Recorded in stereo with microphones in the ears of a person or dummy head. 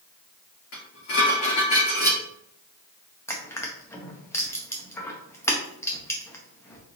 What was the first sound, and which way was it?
Dishes clattering, 60° left (ahead or behind).